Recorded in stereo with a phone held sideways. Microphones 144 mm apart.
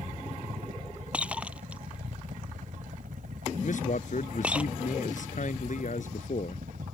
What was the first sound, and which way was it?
A helicopter, 60° right (ahead or behind).